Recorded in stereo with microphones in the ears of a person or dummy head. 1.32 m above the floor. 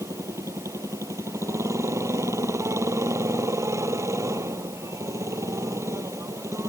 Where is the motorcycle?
20° right (ahead or behind).